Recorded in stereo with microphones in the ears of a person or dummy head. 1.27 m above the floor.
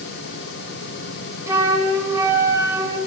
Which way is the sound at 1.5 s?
20° right (ahead or behind).